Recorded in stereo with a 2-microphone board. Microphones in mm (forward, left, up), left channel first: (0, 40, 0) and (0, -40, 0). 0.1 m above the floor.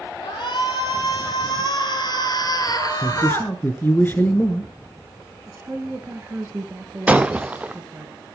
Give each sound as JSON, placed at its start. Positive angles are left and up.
{"t": 0.2, "sound": "a shout", "side_deg": 65, "distance_m": 3.5}
{"t": 3.0, "sound": "a man speaking", "side_deg": 25, "distance_m": 1.5}
{"t": 5.5, "sound": "a woman speaking", "side_deg": -25, "distance_m": 2.0}
{"t": 7.1, "sound": "breaking glass", "side_deg": -15, "distance_m": 0.8}